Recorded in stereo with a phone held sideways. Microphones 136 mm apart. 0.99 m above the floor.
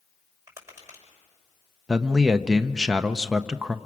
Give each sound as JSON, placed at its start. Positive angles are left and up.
{"t": 0.5, "sound": "tapping", "side_deg": -20, "distance_m": 5.5}
{"t": 1.9, "sound": "a man speaking", "side_deg": -5, "distance_m": 0.6}